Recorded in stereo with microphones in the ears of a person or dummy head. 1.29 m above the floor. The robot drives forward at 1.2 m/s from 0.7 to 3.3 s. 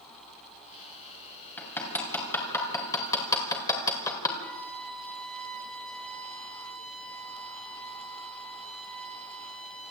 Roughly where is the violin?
Centre.